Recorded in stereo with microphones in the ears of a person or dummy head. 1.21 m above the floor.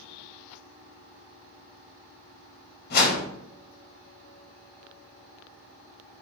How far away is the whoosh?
About 3 m.